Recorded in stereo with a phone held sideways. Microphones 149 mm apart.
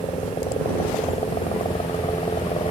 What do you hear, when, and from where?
0.0 s a helicopter: 45° left (ahead or behind); by 2.7 s 40° left (ahead or behind)